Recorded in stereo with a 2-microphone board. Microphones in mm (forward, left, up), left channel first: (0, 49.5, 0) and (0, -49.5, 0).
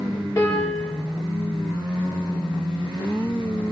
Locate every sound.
0.4 s a piano: 20° left (ahead or behind), 9 m